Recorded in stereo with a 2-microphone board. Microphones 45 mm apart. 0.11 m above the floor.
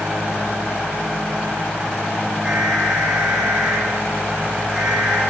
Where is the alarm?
10° right (ahead or behind), 6 m.